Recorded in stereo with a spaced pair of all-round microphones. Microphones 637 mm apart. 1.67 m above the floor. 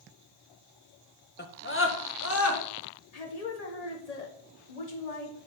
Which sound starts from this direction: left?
A woman speaking, at 3.1 s.